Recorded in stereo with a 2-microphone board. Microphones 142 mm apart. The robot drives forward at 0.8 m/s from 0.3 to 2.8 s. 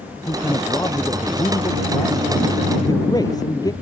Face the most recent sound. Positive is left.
turn(degrees=25)  # may be behind; listen again after turning